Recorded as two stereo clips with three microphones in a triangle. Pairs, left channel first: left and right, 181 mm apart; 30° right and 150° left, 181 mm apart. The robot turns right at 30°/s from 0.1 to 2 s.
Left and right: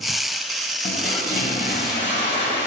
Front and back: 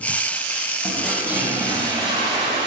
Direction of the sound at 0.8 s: 55° left.